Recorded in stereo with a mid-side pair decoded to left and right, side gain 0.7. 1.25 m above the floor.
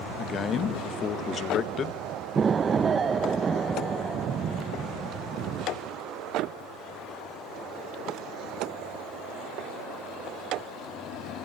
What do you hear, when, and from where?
0.2 s a man speaking: 40° left, 1.7 m
2.4 s an explosion: 25° right, 0.8 m